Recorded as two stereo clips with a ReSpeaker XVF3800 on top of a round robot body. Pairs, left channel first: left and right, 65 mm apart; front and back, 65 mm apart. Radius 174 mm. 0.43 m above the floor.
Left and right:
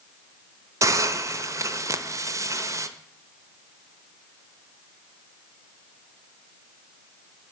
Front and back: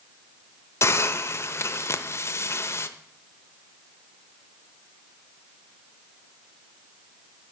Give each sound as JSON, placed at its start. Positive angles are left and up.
{"t": 0.8, "sound": "a hiss", "azimuth_deg": -50, "distance_m": 0.6}